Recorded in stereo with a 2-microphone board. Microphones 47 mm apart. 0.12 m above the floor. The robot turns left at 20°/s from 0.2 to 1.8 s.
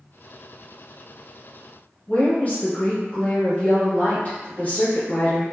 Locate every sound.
2.1 s a woman speaking: 30° left (ahead or behind), 1.8 m